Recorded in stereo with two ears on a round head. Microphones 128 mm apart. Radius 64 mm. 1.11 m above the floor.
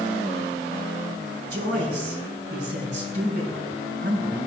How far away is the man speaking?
About 4.5 m.